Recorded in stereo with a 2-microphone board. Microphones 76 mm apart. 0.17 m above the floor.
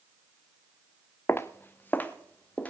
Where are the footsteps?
35° left (ahead or behind), 0.7 m; by 2.7 s 20° left (ahead or behind), 2 m.